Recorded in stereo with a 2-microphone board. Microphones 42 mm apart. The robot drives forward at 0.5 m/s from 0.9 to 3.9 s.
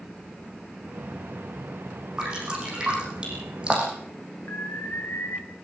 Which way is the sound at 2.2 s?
20° right (ahead or behind).